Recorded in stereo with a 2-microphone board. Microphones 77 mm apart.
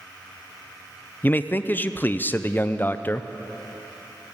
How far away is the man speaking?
About 0.5 m.